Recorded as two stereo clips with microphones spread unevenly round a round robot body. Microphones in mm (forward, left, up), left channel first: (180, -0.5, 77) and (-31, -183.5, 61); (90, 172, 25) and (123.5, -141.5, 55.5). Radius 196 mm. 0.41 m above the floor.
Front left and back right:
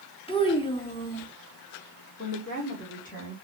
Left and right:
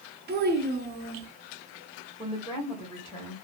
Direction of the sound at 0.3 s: 30° right.